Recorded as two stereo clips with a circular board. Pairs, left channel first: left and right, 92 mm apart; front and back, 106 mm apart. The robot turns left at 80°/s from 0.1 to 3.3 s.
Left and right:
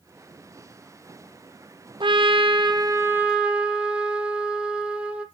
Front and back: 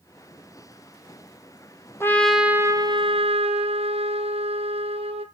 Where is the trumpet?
65° right, 1.1 m; by 5.2 s 170° right, 1.1 m.